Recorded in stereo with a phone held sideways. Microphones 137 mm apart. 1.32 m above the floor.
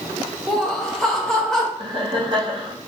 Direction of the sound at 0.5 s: 5° left (ahead or behind).